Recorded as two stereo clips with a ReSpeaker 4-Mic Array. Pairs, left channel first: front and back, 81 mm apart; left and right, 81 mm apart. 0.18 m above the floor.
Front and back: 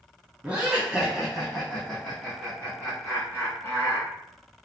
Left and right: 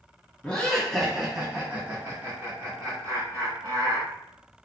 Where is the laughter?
140° left, 1.4 m; by 4.1 s 60° right, 2.5 m.